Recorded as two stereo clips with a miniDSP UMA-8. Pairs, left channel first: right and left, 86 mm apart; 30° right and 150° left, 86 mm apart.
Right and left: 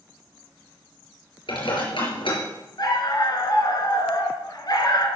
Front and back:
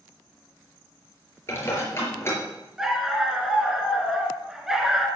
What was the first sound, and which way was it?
Dishes clattering, 90° right.